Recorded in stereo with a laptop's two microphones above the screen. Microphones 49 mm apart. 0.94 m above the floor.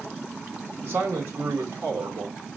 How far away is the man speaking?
About 3 m.